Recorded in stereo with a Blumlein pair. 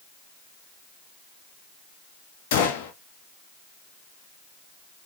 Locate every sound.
2.5 s a gunshot: 50° left, 1.0 m